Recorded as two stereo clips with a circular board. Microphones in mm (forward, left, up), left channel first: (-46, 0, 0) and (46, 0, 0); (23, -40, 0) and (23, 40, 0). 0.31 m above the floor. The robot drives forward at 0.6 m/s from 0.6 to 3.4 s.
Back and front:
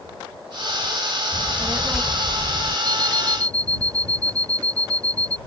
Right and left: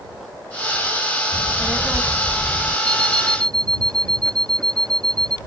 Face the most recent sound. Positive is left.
turn(degrees=55)